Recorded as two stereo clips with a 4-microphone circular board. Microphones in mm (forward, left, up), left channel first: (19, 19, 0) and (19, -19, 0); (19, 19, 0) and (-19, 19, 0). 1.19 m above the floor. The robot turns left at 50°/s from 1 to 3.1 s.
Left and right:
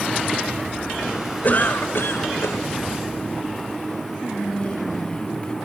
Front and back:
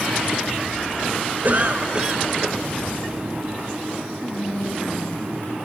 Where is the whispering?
30° left, 1.9 m.